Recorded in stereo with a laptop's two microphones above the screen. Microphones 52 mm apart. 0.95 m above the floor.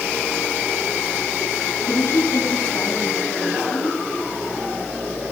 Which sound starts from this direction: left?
A woman speaking, at 1.9 s.